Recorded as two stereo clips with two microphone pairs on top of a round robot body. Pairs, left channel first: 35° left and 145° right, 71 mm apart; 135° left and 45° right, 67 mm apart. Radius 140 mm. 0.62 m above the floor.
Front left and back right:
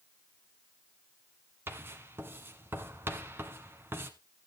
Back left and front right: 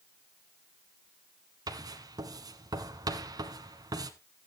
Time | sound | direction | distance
1.7 | writing | 80° right | 1.4 m